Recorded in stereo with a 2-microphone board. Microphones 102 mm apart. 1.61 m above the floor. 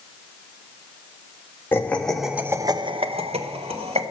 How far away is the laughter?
About 1.1 m.